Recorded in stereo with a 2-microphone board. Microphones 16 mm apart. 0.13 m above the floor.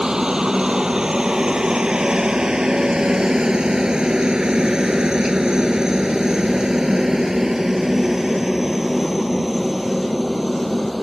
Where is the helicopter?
50° right (ahead or behind); by 11.0 s centre (ahead or behind).